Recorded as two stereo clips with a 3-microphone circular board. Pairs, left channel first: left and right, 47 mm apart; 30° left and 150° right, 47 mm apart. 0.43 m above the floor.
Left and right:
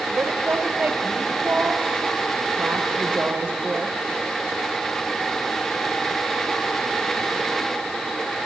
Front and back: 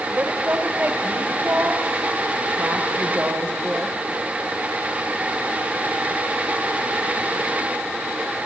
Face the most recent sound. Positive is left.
turn(degrees=-120)